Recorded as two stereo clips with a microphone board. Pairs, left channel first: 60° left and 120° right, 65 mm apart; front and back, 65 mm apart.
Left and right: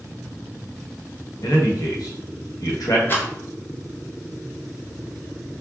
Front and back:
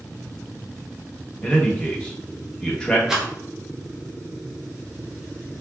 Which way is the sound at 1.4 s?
75° left.